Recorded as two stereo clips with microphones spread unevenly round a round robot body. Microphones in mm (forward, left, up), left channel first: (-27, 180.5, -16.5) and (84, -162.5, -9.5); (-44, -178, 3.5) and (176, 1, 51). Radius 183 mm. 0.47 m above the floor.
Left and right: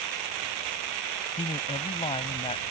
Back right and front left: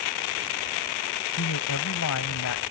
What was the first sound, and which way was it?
A man speaking, straight behind.